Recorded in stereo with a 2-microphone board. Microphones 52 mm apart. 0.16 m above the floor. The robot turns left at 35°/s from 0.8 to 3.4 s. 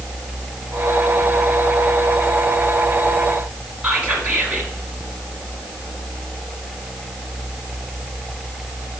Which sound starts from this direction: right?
Whispering, at 3.8 s.